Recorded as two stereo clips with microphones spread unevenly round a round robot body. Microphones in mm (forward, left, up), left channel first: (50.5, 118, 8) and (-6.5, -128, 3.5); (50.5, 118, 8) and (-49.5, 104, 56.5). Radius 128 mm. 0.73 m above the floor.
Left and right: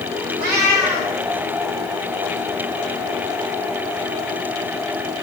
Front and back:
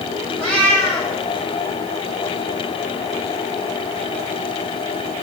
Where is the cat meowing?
95° right, 4.5 m.